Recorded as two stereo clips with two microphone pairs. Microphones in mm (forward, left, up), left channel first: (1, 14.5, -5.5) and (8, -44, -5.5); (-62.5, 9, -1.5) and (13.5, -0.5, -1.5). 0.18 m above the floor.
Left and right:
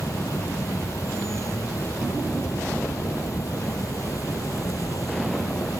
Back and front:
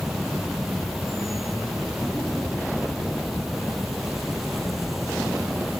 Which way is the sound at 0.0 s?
80° left.